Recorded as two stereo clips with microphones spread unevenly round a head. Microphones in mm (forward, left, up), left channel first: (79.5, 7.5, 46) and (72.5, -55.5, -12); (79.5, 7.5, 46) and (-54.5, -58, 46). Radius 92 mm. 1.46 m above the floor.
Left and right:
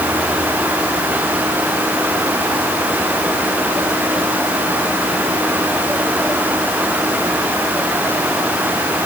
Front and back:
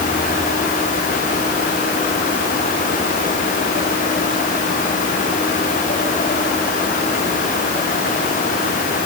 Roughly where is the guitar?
No guitar in this recording.